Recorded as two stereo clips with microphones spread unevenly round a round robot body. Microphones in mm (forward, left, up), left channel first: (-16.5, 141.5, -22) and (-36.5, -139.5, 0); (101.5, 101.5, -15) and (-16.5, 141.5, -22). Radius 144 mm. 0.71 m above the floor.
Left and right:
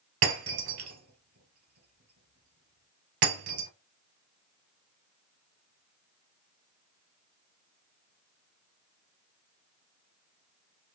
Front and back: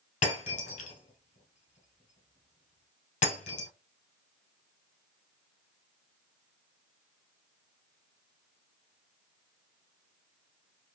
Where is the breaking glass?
55° right, 1.6 m.